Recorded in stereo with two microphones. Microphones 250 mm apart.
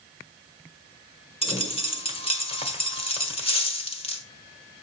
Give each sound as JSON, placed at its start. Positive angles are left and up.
{"t": 1.4, "sound": "a dropped coin", "side_deg": 20, "distance_m": 1.3}